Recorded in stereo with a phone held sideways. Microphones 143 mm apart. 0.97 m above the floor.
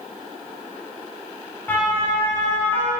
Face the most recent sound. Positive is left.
turn(degrees=15)  # may be behind; listen again after turning